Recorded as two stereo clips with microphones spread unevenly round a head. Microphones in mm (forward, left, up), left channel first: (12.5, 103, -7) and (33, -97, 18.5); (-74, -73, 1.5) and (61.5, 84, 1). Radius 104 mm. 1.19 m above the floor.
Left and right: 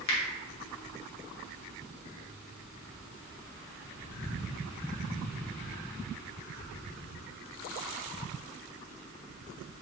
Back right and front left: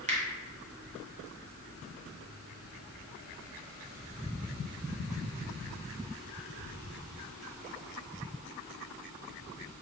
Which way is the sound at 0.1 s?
110° left.